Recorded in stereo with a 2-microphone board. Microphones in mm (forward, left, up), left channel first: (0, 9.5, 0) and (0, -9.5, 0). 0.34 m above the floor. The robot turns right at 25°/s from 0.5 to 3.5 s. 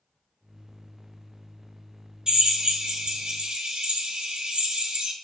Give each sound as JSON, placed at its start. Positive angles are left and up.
{"t": 2.3, "sound": "a drill", "azimuth_deg": -125, "distance_m": 1.6}